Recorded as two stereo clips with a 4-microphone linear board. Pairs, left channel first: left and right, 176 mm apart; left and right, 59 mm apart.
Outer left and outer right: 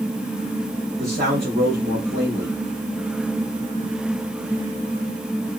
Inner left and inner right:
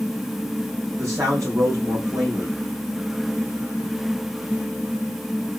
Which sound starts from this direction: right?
A man speaking, at 1.0 s.